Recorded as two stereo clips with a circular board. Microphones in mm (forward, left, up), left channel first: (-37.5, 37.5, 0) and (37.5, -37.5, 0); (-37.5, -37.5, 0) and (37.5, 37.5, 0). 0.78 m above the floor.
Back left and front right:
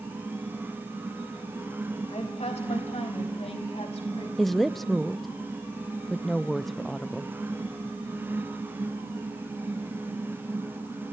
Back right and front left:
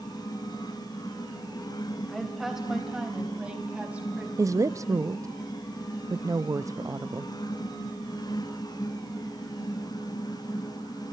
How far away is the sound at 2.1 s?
About 4 m.